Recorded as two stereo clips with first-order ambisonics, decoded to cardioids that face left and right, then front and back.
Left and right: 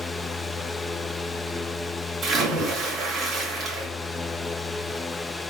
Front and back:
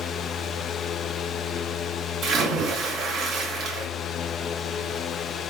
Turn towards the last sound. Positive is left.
turn(degrees=-135)